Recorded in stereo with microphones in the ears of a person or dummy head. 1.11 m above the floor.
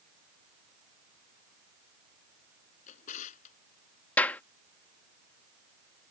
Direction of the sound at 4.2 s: 10° left (ahead or behind).